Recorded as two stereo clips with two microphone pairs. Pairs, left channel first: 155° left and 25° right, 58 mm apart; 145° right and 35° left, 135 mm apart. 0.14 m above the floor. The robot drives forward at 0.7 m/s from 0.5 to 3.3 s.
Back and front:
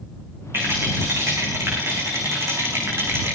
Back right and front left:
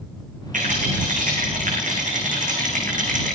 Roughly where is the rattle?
Ahead.